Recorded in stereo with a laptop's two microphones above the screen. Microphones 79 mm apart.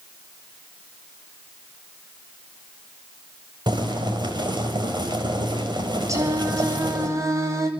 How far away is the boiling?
About 4 m.